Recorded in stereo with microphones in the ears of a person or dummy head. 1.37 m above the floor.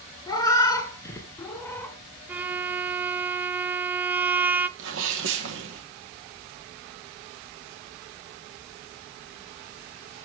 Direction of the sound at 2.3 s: 15° right (ahead or behind).